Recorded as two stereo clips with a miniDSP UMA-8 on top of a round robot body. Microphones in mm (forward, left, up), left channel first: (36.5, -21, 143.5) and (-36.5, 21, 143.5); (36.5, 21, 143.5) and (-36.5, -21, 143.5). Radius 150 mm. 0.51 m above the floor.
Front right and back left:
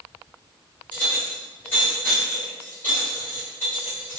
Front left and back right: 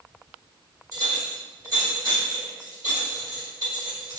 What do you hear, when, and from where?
0.9 s a clink: 95° right, 1.9 m